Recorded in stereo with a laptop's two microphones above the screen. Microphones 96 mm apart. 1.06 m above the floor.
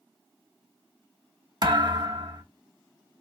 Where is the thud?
50° right (ahead or behind), 0.8 m.